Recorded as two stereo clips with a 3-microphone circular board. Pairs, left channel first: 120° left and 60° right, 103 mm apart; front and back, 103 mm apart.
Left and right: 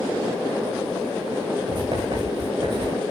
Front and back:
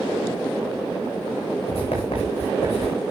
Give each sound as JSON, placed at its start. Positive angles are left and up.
{"t": 1.7, "sound": "writing", "azimuth_deg": -20, "distance_m": 7.0}